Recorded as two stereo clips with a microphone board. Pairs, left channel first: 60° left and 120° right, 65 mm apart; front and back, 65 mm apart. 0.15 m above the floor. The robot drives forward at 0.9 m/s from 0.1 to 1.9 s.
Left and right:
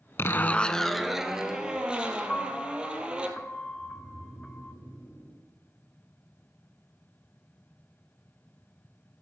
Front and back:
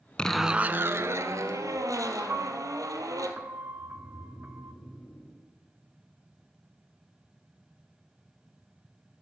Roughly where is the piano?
Behind left.